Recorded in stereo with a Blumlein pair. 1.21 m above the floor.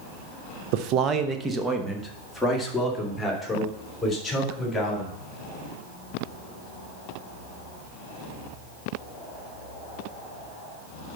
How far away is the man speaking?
About 0.7 m.